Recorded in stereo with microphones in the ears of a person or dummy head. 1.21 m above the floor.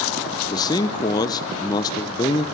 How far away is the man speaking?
About 0.7 m.